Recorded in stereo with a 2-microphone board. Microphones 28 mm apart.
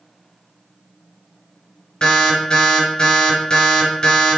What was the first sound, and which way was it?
An alarm, 40° left (ahead or behind).